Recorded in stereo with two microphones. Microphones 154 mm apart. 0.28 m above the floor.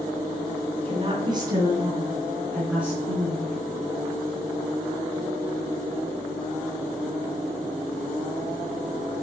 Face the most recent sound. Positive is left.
turn(degrees=0)  # may be behind; listen again after turning